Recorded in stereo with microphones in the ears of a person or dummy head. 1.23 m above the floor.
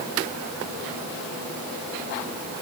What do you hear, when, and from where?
Only background noise.